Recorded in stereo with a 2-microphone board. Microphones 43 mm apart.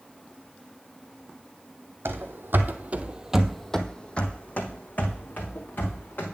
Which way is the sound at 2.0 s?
70° right (ahead or behind).